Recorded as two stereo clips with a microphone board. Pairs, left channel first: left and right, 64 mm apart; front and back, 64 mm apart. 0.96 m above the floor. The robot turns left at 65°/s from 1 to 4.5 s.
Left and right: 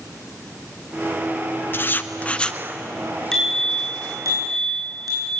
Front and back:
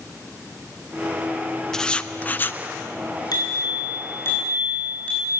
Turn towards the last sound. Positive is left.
turn(degrees=-70)